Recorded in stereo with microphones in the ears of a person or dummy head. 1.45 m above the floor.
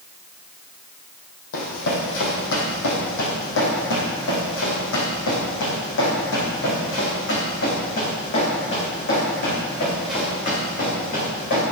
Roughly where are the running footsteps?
Left.